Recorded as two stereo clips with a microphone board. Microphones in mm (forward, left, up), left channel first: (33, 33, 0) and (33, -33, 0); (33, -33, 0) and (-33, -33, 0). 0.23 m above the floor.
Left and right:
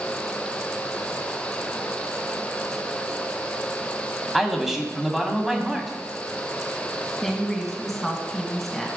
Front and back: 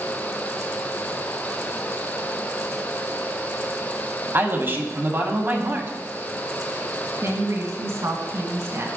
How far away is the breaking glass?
I don't hear breaking glass.